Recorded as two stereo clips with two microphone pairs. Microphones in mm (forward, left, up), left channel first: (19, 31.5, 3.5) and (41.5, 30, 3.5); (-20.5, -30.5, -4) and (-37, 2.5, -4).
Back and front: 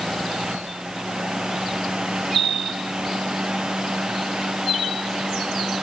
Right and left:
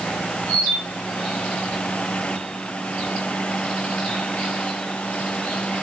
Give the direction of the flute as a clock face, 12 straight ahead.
No flute in this recording.